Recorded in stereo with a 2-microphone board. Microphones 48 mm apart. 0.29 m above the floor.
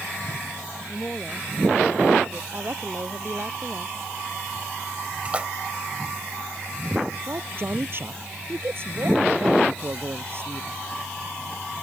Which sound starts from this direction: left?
A woman speaking, at 0.9 s.